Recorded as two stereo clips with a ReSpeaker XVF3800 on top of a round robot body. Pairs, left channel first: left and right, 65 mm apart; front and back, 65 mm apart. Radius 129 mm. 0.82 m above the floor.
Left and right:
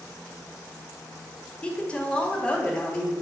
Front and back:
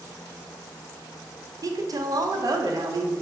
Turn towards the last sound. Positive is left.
turn(degrees=165)